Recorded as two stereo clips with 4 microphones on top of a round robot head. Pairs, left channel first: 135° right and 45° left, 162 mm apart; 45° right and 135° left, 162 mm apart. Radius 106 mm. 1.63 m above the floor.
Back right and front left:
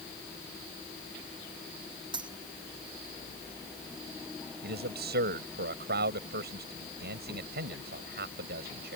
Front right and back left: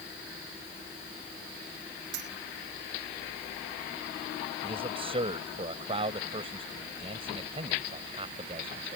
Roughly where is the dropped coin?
Left.